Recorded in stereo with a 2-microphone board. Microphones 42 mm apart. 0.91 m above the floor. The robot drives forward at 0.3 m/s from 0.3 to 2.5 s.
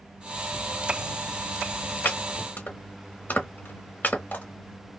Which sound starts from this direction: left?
Chopping, at 2.0 s.